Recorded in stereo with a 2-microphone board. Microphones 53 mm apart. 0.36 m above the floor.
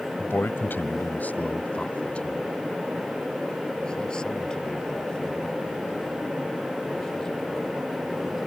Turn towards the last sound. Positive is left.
turn(degrees=10)  # may be behind; listen again after turning